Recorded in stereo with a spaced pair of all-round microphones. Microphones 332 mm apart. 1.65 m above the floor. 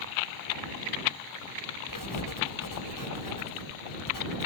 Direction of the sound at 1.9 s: 75° left (ahead or behind).